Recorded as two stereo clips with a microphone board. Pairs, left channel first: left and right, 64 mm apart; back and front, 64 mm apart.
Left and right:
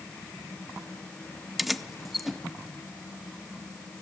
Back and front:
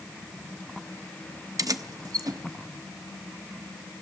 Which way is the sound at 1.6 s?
Straight ahead.